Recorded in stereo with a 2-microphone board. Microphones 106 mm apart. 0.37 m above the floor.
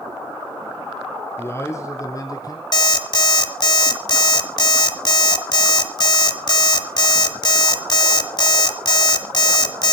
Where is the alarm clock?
45° left (ahead or behind), 1.4 m.